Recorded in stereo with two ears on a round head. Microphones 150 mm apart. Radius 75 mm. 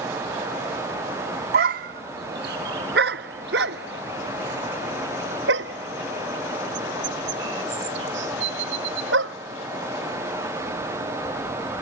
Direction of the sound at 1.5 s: 60° right (ahead or behind).